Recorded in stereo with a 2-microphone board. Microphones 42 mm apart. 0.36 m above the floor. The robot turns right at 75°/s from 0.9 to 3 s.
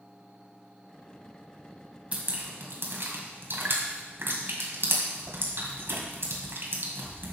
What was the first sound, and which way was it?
Dripping, 35° right (ahead or behind).